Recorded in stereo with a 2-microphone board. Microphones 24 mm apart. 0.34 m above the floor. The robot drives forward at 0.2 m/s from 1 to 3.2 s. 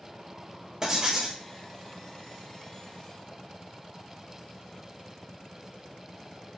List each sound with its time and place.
0.8 s writing: 30° right (ahead or behind), 1.0 m